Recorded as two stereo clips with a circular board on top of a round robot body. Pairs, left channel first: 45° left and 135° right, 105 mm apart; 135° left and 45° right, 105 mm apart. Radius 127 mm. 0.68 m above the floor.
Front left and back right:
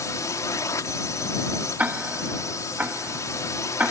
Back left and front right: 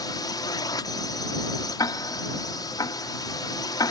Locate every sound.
0.0 s a drone: 95° left
1.8 s ticking: 160° left